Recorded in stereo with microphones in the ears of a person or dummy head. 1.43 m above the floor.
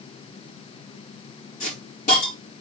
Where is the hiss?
40° left (ahead or behind), 4.5 m.